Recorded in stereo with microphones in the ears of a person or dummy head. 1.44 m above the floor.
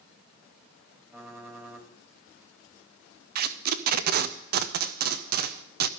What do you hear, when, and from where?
1.1 s typing on a keyboard: 10° right (ahead or behind), 2 m
3.4 s tape being pulled: 55° right (ahead or behind), 0.6 m